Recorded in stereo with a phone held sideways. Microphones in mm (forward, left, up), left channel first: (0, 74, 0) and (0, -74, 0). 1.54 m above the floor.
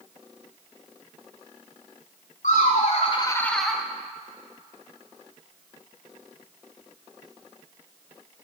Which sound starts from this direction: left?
Laughter, at 2.4 s.